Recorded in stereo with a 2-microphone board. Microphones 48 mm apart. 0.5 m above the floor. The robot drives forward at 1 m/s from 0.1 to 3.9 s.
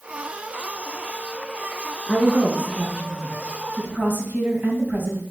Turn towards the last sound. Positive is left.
turn(degrees=-40)  # may be behind; listen again after turning